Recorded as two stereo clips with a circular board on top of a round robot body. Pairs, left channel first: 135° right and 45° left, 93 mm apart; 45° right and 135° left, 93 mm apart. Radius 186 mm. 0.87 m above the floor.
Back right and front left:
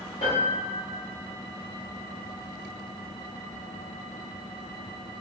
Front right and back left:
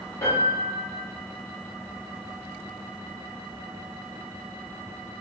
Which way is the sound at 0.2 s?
105° right.